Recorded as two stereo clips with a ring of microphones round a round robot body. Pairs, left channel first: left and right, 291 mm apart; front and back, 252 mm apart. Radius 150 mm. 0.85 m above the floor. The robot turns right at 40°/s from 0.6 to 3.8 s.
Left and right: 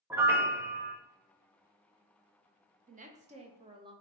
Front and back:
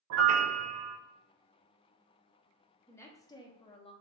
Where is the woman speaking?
70° right, 0.5 m; by 3.9 s 35° right, 0.5 m.